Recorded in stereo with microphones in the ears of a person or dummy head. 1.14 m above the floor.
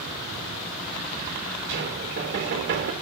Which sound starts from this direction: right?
Knocking, at 1.7 s.